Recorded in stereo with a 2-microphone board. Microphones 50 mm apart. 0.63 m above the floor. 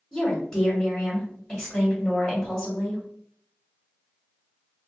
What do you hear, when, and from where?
0.1 s a woman speaking: 10° left (ahead or behind), 1.6 m